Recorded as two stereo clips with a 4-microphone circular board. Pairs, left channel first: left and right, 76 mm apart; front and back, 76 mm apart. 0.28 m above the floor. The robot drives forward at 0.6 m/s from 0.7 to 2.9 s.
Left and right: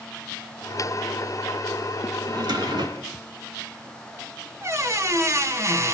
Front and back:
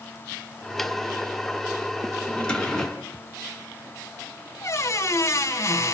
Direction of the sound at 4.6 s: 45° right.